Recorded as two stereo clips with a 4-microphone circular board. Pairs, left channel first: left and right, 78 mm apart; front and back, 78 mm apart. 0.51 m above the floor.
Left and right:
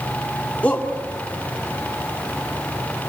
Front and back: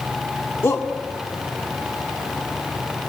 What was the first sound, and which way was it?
A shout, 30° left.